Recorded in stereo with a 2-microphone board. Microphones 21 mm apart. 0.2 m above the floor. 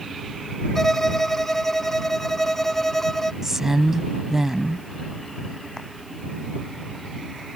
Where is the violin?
15° left (ahead or behind).